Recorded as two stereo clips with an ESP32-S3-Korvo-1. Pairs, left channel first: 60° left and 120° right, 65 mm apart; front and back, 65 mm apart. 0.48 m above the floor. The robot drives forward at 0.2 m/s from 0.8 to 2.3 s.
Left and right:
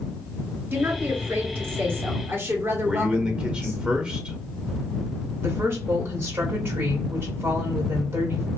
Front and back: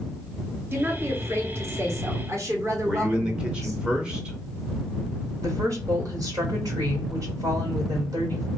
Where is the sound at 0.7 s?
150° right, 0.9 m; by 3.8 s 160° right, 1.1 m.